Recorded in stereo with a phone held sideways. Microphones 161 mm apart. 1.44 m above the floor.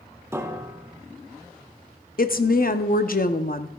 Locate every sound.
0.3 s a piano: 15° right (ahead or behind), 0.9 m
2.2 s a woman speaking: 60° left (ahead or behind), 0.7 m